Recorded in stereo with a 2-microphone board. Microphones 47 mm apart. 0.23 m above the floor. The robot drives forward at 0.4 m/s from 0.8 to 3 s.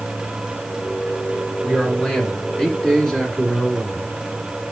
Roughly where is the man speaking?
Centre.